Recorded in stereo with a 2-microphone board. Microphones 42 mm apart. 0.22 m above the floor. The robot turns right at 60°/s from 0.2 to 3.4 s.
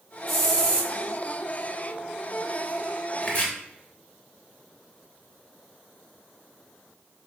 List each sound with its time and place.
0.3 s a hiss: 5° left, 0.8 m; by 0.9 s 45° left, 0.8 m
3.2 s chopping: 30° left (ahead or behind), 0.7 m; by 3.5 s 35° left (ahead or behind), 0.7 m